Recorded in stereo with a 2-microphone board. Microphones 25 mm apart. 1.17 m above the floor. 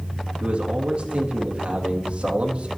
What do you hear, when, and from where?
0.4 s a man speaking: 45° right (ahead or behind), 2 m